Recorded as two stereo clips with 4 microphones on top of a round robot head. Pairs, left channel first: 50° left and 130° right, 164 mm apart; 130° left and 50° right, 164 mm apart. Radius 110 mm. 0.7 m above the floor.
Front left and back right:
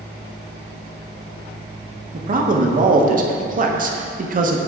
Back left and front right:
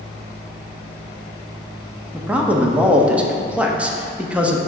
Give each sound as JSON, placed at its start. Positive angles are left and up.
{"t": 2.1, "sound": "a man speaking", "azimuth_deg": -130, "distance_m": 0.9}